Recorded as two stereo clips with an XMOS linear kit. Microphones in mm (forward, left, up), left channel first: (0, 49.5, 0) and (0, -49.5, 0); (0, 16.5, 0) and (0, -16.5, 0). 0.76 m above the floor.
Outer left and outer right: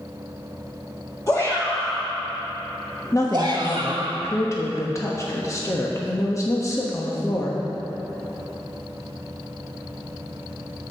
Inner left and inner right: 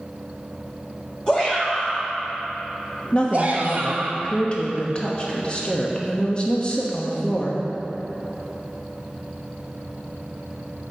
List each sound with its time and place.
1.3 s a shout: 30° left (ahead or behind), 1.7 m; by 4.1 s 55° right (ahead or behind), 1.7 m
3.1 s a woman speaking: 30° left (ahead or behind), 1.0 m